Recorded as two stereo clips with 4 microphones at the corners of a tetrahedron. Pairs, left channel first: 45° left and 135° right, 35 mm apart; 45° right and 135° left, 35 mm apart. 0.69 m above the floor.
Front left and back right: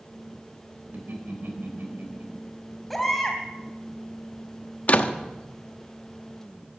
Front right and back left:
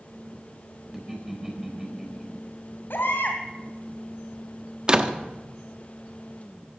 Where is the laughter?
145° right, 4 m.